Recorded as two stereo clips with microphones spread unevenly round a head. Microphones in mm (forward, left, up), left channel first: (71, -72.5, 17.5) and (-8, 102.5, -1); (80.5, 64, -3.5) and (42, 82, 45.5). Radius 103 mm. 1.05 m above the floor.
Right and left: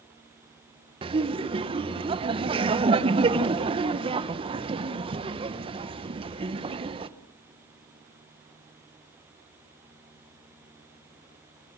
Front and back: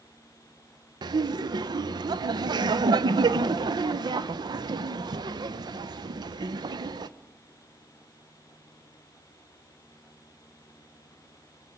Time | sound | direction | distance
1.0 | laughter | 155° left | 1.0 m